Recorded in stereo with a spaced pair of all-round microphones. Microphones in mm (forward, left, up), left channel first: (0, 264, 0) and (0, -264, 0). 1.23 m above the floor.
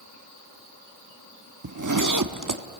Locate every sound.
1.6 s a zipper: 35° right (ahead or behind), 1.0 m